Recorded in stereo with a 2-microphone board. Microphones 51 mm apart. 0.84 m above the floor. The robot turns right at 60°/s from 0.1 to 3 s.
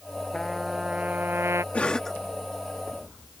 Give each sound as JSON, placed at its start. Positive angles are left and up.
{"t": 0.3, "sound": "a trumpet", "azimuth_deg": 170}
{"t": 1.7, "sound": "a cough", "side_deg": 25}